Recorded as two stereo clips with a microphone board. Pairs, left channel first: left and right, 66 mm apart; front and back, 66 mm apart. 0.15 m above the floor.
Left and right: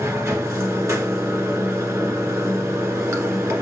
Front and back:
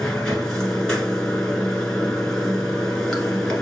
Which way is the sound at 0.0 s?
75° right.